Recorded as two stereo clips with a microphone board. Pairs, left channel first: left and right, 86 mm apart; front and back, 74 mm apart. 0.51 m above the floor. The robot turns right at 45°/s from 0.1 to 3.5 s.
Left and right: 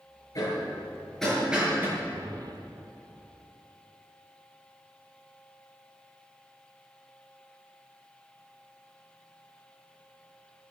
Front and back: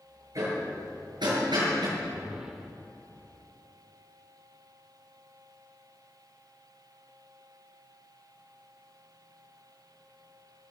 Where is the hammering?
135° left, 7.5 m; by 1.9 s 155° right, 7.5 m.